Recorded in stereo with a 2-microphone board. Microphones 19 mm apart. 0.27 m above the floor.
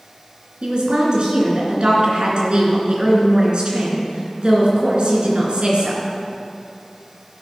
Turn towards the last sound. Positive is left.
turn(degrees=-55)  # may be behind; listen again after turning